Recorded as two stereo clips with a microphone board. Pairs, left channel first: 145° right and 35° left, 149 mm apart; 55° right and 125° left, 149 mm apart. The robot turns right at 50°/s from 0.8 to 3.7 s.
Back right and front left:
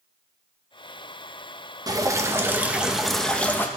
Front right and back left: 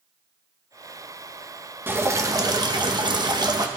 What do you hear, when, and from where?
1.9 s dripping: 65° left, 0.9 m; by 3.7 s 155° left, 0.9 m